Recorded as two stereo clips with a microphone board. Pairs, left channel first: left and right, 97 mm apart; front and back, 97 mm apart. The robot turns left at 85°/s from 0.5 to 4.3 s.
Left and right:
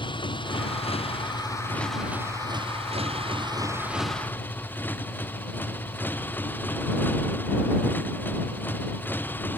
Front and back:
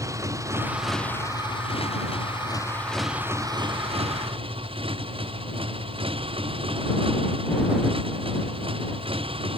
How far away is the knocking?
No knocking in this recording.